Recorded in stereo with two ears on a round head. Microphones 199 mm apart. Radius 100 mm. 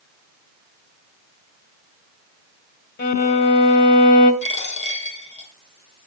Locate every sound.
3.0 s a violin: 50° left (ahead or behind), 1.9 m
4.4 s a dropped coin: 30° left (ahead or behind), 3.5 m